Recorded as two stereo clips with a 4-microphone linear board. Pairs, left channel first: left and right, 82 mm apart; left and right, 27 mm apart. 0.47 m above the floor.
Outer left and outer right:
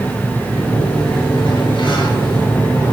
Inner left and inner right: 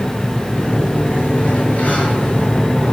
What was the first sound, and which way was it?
A sliding door, 80° left.